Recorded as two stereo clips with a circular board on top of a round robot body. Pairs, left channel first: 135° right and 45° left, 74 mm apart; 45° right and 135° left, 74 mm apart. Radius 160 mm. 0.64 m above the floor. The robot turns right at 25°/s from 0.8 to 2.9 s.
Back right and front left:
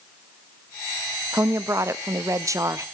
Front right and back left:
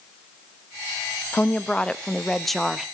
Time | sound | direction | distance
1.3 | a woman speaking | 15° left | 1.0 m